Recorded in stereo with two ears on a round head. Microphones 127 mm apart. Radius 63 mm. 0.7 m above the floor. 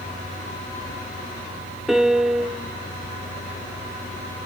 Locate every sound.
1.9 s a piano: centre (ahead or behind), 0.7 m